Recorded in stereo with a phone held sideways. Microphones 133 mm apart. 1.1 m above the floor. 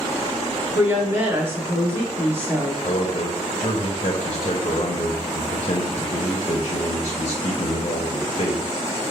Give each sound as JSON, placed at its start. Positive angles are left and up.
{"t": 0.8, "sound": "a woman speaking", "side_deg": -20, "distance_m": 1.1}
{"t": 2.8, "sound": "a man speaking", "side_deg": 45, "distance_m": 0.6}